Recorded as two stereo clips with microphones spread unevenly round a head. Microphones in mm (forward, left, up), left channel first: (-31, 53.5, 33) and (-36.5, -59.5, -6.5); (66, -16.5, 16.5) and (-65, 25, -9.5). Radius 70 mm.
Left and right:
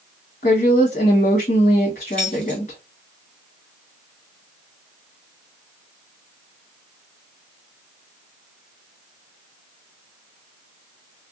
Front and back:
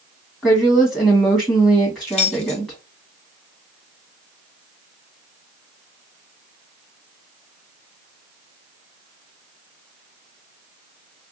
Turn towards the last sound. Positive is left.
turn(degrees=15)